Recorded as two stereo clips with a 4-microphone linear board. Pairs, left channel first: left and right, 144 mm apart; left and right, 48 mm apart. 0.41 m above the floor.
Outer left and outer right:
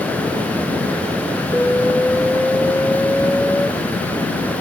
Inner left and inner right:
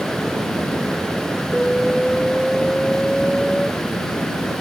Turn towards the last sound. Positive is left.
turn(degrees=10)  # may be behind; listen again after turning